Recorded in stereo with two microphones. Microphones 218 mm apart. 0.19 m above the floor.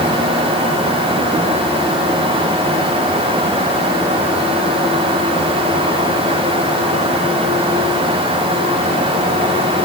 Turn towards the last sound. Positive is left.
No sound to turn to.